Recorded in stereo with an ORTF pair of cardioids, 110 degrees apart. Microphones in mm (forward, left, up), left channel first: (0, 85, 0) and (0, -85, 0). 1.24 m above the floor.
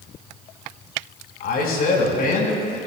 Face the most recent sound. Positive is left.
turn(degrees=60)